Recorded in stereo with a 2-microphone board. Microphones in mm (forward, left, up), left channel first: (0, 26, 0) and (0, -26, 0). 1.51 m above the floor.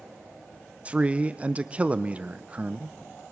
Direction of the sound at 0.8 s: 25° right (ahead or behind).